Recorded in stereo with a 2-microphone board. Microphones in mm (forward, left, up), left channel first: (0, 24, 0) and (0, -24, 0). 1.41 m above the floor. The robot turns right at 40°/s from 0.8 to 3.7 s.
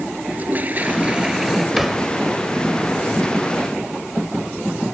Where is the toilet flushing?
35° right; by 1.7 s straight ahead.